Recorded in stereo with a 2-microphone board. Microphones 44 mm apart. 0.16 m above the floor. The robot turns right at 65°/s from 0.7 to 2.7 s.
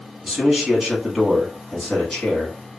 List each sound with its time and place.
0.2 s a man speaking: 15° right (ahead or behind), 1.1 m; by 2.6 s 20° left (ahead or behind), 1.1 m